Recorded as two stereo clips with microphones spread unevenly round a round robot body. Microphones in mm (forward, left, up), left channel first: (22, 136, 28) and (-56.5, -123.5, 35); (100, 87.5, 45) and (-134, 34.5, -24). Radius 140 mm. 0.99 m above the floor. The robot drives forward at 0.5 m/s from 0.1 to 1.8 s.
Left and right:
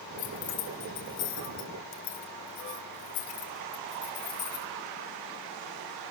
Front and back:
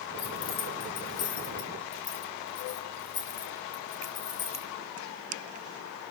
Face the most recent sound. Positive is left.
turn(degrees=40)